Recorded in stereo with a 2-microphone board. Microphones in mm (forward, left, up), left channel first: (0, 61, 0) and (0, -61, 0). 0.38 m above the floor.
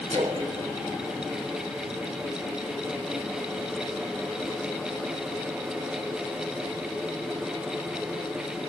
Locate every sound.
0.1 s a splash: 75° right (ahead or behind), 1.7 m